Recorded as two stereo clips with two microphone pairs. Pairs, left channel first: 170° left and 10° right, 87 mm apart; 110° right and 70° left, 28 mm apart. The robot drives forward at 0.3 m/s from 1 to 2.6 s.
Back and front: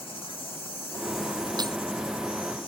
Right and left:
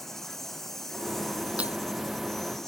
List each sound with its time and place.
0.0 s an insect: 170° left; by 2.7 s 175° left
1.6 s breaking glass: 30° left